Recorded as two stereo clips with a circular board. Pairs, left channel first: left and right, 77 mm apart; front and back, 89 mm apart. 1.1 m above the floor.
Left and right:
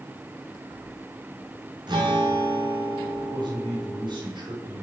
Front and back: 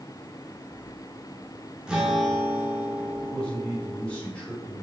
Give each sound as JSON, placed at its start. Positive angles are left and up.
{"t": 1.9, "sound": "a guitar", "azimuth_deg": -100, "distance_m": 4.0}
{"t": 3.2, "sound": "a man speaking", "azimuth_deg": -80, "distance_m": 6.0}